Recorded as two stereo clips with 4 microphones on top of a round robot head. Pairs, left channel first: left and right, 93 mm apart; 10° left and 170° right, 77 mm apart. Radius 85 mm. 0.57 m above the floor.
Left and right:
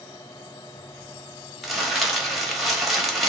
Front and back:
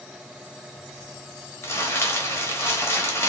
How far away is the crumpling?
About 1.1 m.